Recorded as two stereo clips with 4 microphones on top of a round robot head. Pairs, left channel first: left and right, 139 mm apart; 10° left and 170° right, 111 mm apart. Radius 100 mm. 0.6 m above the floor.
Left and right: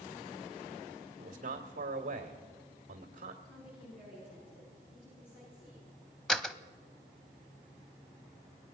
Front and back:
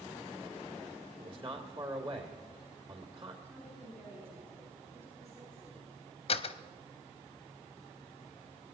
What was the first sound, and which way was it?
A man speaking, 130° right.